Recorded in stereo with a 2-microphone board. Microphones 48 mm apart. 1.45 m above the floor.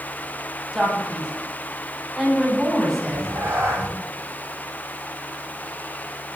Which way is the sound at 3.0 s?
60° right (ahead or behind).